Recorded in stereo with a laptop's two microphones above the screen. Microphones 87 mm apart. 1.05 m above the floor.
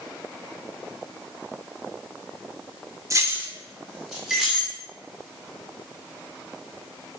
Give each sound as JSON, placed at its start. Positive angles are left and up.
{"t": 3.1, "sound": "keys jangling", "side_deg": -35, "distance_m": 0.6}